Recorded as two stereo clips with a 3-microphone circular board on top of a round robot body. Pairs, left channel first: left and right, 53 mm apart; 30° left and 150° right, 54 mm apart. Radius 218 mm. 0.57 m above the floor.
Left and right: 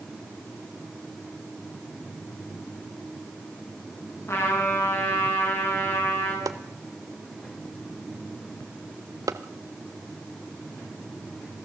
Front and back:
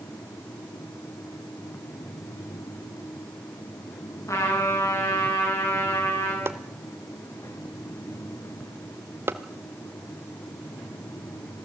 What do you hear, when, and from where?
4.3 s a trumpet: 50° left, 8 m
6.5 s chopping: 105° right, 0.8 m